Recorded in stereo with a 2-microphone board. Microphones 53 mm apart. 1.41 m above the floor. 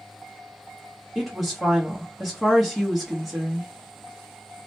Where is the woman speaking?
5° right (ahead or behind), 1.0 m.